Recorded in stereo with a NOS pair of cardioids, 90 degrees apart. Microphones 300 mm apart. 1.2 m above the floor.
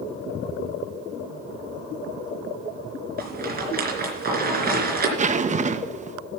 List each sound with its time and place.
3.2 s a rattle: 30° right, 3.5 m
5.2 s a zipper: 25° right, 0.8 m